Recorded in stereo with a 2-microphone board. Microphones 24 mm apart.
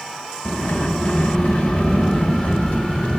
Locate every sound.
0.5 s a sliding door: 55° left (ahead or behind), 2.5 m